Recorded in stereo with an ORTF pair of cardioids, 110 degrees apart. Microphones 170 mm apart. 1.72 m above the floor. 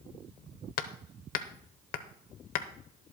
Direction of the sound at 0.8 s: 65° left.